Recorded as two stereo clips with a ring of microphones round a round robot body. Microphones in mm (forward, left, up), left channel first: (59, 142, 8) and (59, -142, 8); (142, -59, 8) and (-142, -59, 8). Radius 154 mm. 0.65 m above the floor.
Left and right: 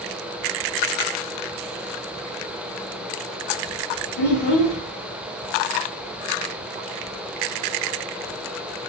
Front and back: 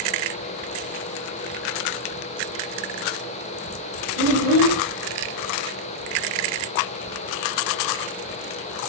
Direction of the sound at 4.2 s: 125° left.